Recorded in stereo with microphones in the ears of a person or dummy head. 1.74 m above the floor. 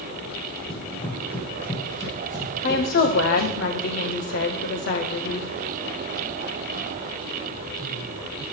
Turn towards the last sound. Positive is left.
turn(degrees=50)  # may be behind; listen again after turning